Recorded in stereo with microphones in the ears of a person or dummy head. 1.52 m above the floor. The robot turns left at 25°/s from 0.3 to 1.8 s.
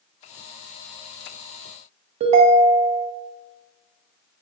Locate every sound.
2.2 s a ringtone: 40° right (ahead or behind), 0.5 m